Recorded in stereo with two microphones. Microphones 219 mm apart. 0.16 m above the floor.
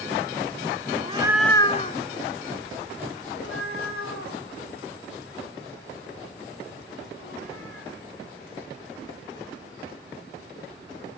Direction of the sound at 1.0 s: 35° right (ahead or behind).